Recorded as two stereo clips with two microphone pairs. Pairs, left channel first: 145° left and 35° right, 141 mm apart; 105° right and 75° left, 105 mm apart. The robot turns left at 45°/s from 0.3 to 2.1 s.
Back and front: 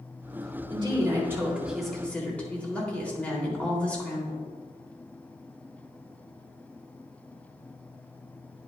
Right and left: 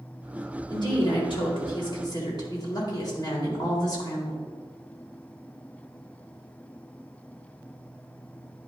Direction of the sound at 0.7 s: 70° right.